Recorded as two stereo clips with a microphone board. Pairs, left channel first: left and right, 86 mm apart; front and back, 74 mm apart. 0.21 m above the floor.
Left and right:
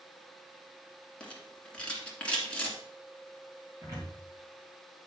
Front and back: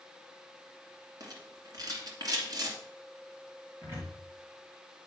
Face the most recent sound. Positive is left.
turn(degrees=-135)